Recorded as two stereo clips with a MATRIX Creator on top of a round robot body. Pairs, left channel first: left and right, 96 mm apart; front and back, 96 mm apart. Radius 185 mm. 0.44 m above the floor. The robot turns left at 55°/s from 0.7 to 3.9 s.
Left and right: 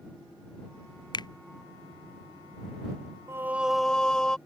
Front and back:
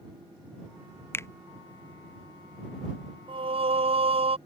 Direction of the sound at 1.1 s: 65° left.